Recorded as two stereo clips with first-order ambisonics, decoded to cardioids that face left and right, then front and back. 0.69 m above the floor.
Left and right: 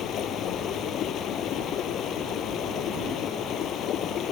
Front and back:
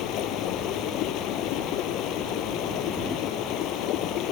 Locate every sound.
0.0 s running water: 40° left